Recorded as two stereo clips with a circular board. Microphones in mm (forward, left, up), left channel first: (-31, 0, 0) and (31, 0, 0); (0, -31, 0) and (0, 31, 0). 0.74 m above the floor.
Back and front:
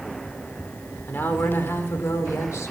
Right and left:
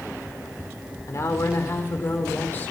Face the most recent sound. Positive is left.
turn(degrees=-150)